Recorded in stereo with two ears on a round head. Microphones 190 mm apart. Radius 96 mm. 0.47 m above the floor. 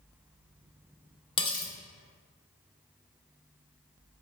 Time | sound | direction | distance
1.4 | cutlery clinking | 25° left (ahead or behind) | 0.6 m